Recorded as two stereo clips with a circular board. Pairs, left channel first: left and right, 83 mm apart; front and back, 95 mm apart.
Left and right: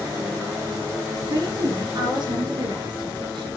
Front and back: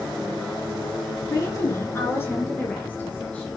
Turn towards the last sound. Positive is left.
turn(degrees=-80)